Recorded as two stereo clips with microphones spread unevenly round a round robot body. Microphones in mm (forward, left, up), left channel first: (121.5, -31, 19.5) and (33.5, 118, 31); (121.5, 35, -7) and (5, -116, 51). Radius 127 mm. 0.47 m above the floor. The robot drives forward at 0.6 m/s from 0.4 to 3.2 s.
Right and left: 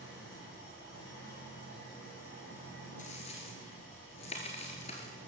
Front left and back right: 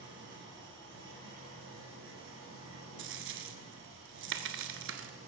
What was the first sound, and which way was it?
An engine running, 105° right.